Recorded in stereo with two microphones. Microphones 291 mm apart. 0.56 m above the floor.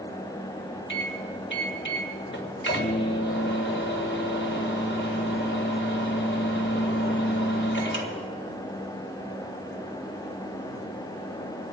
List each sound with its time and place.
0.9 s a microwave: 45° left (ahead or behind), 2.5 m